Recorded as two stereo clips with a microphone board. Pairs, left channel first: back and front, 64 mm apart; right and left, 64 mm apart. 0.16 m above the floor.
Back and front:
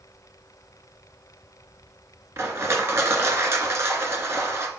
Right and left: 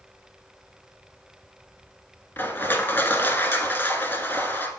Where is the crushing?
40° right, 1.0 m.